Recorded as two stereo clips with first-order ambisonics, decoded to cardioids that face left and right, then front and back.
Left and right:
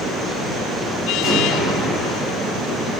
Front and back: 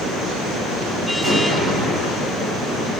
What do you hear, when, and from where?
1.2 s an explosion: 155° right, 1.3 m